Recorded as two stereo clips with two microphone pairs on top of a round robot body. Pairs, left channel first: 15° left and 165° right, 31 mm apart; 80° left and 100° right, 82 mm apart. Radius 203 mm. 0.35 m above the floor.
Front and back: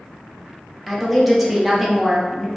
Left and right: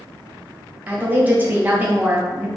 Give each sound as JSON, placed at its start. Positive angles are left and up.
{"t": 0.9, "sound": "a woman speaking", "azimuth_deg": -95, "distance_m": 1.0}